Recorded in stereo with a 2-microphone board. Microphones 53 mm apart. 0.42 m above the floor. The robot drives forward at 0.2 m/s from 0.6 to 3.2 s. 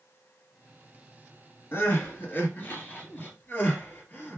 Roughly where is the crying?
Left.